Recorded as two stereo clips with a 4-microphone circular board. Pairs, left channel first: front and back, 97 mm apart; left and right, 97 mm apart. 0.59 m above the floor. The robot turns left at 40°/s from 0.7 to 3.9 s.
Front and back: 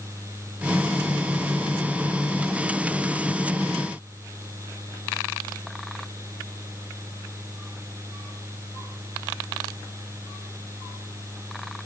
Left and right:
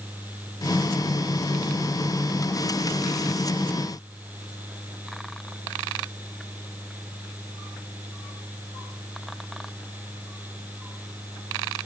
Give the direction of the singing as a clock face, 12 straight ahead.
I don't hear singing.